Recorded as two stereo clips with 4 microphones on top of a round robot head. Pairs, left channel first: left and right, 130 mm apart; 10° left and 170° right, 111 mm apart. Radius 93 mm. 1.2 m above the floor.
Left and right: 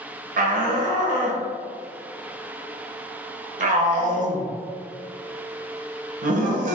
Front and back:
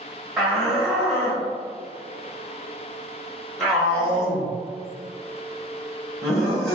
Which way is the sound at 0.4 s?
75° right.